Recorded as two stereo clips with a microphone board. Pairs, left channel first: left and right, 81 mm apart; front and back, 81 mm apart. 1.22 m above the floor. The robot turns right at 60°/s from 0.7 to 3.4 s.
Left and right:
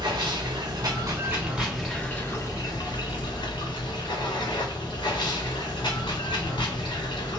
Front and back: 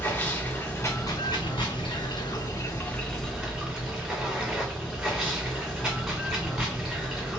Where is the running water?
65° right, 2 m; by 7.4 s 100° left, 2 m.